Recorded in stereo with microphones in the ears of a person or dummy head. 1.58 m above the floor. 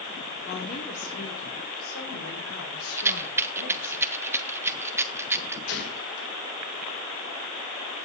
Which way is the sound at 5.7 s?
80° left.